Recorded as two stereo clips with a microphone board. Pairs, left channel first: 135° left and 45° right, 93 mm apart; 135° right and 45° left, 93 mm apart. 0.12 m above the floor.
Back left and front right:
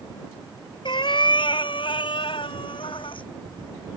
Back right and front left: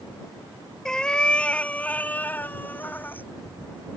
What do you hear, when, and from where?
0.8 s a cat meowing: 145° left; by 3.3 s 155° left